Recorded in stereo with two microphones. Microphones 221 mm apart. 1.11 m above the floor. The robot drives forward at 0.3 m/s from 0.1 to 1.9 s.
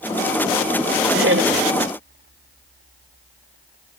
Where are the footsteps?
No footsteps in this recording.